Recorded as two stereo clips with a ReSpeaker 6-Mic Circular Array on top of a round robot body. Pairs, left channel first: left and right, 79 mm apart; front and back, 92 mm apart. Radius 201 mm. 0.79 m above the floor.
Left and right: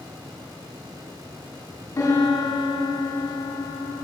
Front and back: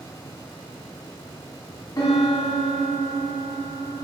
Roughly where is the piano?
Ahead left.